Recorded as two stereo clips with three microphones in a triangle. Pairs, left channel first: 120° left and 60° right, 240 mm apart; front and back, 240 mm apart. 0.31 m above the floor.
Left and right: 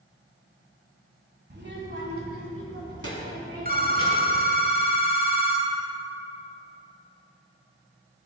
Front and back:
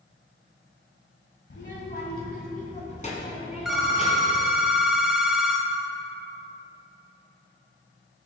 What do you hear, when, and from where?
1.5 s a child speaking: 25° right, 1.0 m; by 4.4 s 65° right, 2.5 m
3.6 s a phone ringing: 95° right, 1.0 m